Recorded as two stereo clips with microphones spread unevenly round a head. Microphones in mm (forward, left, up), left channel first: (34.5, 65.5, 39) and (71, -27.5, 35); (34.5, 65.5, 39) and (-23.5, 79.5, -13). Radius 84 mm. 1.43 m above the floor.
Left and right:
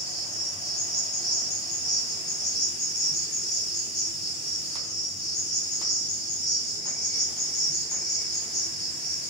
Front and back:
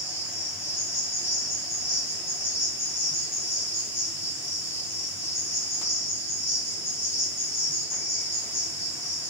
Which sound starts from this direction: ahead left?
An insect, at 0.0 s.